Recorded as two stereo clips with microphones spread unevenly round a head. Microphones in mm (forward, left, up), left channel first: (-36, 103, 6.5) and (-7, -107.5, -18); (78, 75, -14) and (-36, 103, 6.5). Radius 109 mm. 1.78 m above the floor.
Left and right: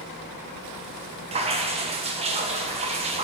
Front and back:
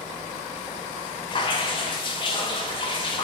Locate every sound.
1.3 s dripping: 35° right, 0.7 m